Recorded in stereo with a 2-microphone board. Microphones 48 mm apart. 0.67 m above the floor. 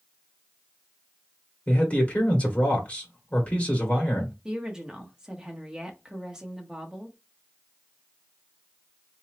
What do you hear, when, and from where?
1.7 s a man speaking: 30° left (ahead or behind), 1.3 m
4.5 s a woman speaking: 15° right (ahead or behind), 1.2 m